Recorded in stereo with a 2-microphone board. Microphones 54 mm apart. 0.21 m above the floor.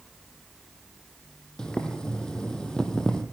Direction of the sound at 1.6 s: 15° left (ahead or behind).